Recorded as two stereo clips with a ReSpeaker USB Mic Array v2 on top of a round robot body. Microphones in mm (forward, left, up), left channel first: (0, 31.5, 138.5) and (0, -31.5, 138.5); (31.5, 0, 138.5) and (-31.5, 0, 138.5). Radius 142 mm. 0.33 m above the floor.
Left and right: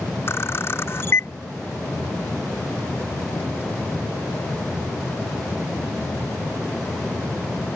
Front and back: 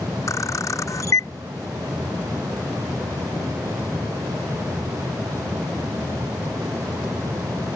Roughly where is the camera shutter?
Ahead left.